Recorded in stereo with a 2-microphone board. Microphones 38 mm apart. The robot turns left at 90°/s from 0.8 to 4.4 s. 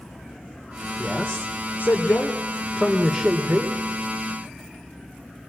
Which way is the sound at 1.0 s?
170° left.